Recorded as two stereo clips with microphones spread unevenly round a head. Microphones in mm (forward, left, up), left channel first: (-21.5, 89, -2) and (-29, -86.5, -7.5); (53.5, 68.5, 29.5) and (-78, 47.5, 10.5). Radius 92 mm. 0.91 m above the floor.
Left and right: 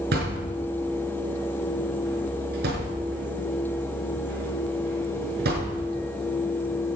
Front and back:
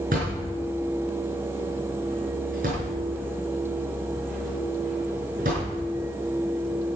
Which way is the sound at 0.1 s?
125° right.